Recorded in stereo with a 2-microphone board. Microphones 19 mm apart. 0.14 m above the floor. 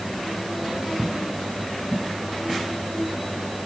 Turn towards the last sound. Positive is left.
No sound to turn to.